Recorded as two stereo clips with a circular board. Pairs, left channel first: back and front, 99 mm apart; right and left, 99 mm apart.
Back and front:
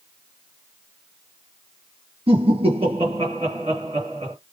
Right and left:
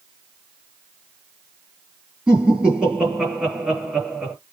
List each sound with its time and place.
2.3 s laughter: 10° left, 5 m